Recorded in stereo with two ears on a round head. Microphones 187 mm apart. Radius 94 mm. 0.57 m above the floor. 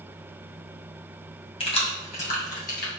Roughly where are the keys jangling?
Left.